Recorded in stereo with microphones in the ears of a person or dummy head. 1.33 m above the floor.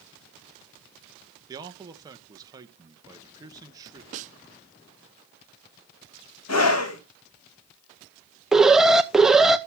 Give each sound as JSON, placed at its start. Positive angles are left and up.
{"t": 1.5, "sound": "a man speaking", "side_deg": -20, "distance_m": 1.1}
{"t": 4.1, "sound": "a snare drum", "side_deg": -40, "distance_m": 0.8}
{"t": 6.5, "sound": "a scream", "side_deg": 80, "distance_m": 1.7}
{"t": 8.5, "sound": "an alarm", "side_deg": -5, "distance_m": 0.6}